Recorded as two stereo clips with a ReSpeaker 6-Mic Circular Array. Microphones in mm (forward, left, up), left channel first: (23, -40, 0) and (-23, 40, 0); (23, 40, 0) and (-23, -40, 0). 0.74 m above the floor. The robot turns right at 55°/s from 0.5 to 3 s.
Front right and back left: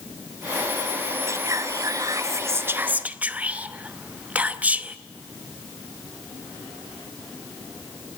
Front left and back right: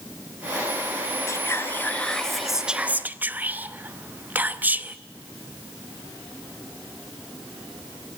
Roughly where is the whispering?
Left.